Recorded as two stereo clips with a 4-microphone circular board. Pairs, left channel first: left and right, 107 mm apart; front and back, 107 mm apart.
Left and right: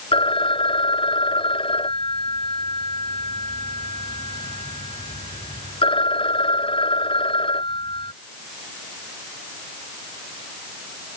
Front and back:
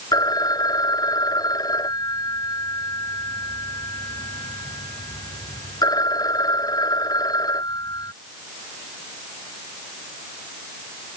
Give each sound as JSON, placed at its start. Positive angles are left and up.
{"t": 0.1, "sound": "a phone ringing", "azimuth_deg": 55}